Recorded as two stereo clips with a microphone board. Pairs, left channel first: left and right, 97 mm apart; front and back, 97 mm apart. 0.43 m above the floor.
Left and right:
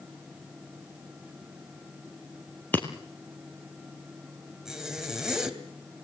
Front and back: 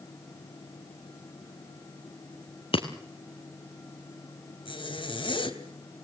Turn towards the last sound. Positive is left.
turn(degrees=-5)